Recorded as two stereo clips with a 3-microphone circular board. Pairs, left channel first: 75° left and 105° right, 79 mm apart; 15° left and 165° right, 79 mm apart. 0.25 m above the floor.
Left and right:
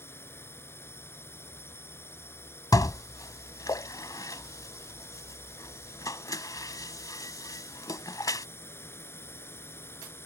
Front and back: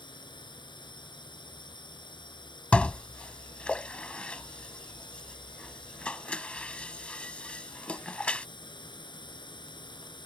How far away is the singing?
No singing in this recording.